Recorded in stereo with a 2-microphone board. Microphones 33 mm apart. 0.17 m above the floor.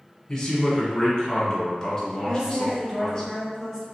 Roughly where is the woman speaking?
Centre.